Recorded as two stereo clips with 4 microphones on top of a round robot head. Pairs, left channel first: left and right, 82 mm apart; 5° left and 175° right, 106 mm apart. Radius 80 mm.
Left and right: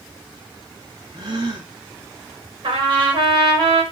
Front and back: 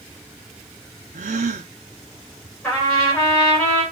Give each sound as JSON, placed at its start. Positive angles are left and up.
{"t": 1.1, "sound": "a gasp", "azimuth_deg": -150, "distance_m": 0.6}
{"t": 2.6, "sound": "a trumpet", "azimuth_deg": -80, "distance_m": 4.5}